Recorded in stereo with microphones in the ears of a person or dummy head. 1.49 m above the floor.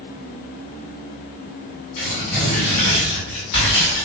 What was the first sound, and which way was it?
Tearing paper, 50° left (ahead or behind).